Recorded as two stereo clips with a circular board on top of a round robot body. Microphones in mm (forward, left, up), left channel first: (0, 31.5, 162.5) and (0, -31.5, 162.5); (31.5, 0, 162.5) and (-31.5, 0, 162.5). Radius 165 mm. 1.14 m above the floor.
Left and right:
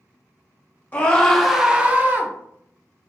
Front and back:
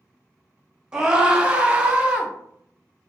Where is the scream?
115° left, 0.7 m; by 2.3 s 115° right, 0.8 m.